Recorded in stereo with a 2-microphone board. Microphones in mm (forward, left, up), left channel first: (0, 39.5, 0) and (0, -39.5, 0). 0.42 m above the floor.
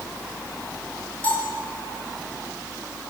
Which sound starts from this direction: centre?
A bell, at 1.2 s.